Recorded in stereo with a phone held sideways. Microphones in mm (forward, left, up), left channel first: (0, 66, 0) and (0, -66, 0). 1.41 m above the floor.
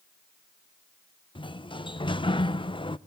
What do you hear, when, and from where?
1.4 s a sliding door: 40° left (ahead or behind), 0.5 m